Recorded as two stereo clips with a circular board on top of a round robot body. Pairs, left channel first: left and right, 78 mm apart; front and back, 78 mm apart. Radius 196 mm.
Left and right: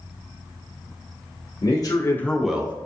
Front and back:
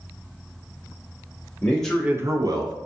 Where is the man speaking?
65° left, 0.8 m; by 2.7 s 160° right, 0.9 m.